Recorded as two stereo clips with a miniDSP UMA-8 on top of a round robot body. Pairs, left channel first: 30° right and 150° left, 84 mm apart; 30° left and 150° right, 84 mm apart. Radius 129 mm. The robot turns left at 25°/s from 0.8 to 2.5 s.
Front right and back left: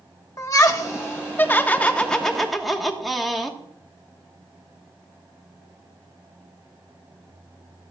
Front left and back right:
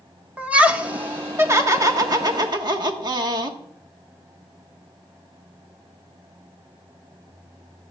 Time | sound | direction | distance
0.4 | laughter | 80° right | 1.3 m